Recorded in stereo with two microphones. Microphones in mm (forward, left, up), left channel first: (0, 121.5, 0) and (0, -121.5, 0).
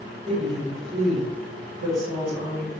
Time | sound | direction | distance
0.3 | a woman speaking | 50° right (ahead or behind) | 1.2 m